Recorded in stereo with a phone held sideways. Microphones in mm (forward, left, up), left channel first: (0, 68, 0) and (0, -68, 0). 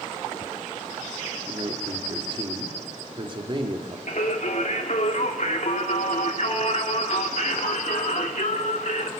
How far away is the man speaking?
About 3 m.